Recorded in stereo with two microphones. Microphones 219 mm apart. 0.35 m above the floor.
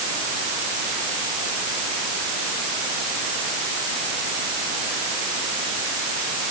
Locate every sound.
Only background noise.